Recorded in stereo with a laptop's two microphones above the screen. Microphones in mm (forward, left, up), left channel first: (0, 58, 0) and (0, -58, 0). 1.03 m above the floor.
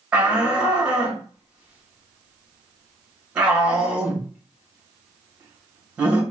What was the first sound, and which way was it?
A shout, 10° right (ahead or behind).